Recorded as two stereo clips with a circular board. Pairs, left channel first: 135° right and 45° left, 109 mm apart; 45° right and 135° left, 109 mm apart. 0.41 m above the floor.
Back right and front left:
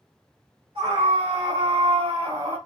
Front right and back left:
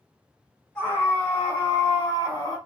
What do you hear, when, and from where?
0.8 s a scream: 30° left, 3.5 m; by 2.6 s 15° right, 3 m